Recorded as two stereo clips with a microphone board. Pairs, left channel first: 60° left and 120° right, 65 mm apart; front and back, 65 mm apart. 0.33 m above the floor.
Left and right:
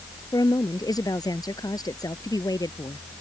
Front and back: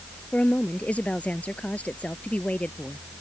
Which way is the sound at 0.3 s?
70° left.